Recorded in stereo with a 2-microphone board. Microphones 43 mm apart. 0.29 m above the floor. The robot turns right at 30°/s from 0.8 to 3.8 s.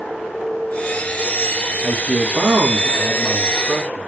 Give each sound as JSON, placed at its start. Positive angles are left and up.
{"t": 1.8, "sound": "a man speaking", "azimuth_deg": -105, "distance_m": 3.0}